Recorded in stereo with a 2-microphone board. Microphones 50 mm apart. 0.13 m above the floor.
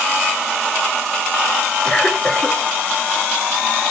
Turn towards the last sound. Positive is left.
turn(degrees=20)  # may be behind; listen again after turning